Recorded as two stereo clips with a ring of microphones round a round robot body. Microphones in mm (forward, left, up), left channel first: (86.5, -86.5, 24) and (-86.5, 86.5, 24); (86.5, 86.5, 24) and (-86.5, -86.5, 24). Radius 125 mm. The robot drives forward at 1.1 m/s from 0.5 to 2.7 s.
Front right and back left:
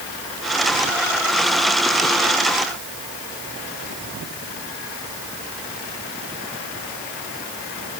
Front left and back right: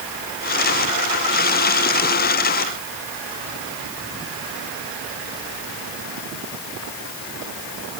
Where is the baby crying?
No baby crying in this recording.